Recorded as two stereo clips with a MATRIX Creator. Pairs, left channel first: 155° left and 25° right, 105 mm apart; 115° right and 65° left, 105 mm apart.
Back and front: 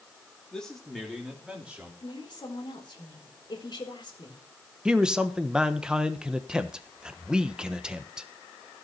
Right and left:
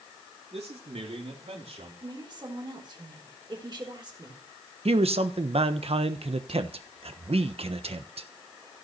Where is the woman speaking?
115° left, 3.5 m.